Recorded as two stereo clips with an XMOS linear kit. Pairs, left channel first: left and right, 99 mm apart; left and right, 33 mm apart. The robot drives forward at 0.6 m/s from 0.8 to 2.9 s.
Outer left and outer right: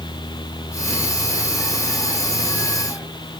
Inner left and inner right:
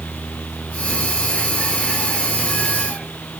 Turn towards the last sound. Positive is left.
No sound to turn to.